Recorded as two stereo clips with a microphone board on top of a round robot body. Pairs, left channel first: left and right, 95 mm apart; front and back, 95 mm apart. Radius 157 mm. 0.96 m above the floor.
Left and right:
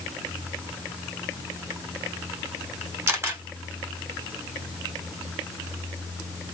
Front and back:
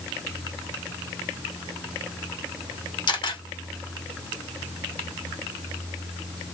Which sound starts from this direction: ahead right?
A camera shutter, at 3.1 s.